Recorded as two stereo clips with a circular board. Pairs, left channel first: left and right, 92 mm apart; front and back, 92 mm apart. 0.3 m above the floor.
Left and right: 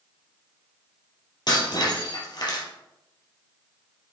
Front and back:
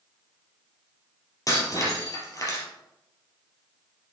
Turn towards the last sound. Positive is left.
turn(degrees=50)